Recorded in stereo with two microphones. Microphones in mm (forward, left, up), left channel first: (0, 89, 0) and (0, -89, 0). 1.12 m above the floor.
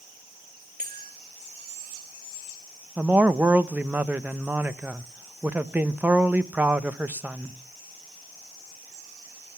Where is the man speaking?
10° right (ahead or behind), 0.9 m.